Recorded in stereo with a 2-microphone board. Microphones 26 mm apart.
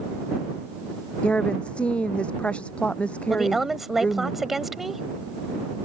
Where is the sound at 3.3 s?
5° right (ahead or behind).